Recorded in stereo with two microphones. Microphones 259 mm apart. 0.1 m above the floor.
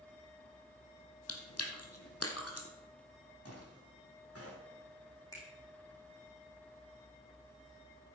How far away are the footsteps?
About 5 m.